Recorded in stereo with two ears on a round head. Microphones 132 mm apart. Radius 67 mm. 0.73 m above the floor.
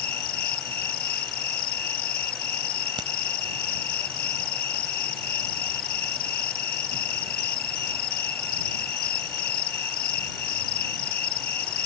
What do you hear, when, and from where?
0.0 s an insect: 65° left (ahead or behind)
3.0 s a crack: 30° right (ahead or behind)